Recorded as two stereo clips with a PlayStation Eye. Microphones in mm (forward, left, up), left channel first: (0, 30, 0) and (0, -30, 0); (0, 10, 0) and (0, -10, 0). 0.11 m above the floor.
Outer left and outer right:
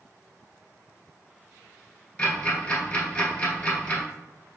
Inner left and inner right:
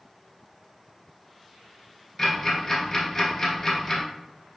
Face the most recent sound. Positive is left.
turn(degrees=20)  # may be behind; listen again after turning